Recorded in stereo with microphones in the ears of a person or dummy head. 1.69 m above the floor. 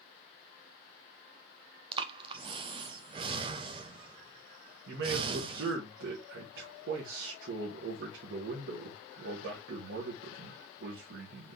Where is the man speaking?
65° right (ahead or behind), 1.1 m.